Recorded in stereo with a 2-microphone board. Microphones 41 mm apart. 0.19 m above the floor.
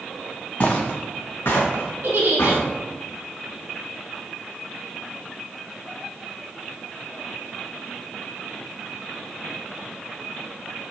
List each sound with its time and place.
0.6 s footsteps: 35° left (ahead or behind), 0.8 m; by 2.6 s 85° left, 1.9 m
2.0 s a giggle: 60° right (ahead or behind), 0.9 m